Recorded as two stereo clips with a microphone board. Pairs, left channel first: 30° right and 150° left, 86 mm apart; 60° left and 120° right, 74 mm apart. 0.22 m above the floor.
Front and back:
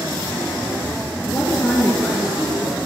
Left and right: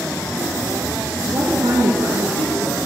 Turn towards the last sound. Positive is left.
turn(degrees=-130)